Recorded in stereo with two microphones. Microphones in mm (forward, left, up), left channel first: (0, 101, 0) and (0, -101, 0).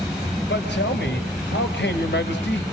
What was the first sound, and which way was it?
A man speaking, 65° left (ahead or behind).